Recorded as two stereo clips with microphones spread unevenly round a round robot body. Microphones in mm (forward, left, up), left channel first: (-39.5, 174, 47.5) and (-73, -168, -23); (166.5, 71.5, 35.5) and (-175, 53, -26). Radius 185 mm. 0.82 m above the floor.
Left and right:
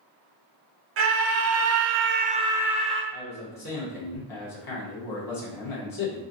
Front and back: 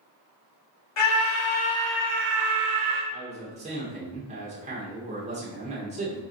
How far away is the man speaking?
About 2.5 m.